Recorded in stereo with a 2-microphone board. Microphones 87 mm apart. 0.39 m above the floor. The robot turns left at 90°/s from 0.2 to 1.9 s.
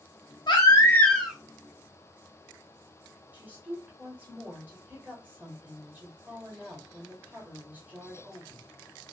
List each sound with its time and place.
0.5 s a baby crying: 70° left, 0.7 m; by 1.4 s 10° right, 0.7 m
3.3 s a woman speaking: 20° right (ahead or behind), 1.5 m